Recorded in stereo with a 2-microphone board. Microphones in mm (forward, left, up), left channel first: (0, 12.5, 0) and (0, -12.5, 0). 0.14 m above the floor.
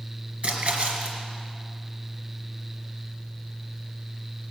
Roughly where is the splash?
Right.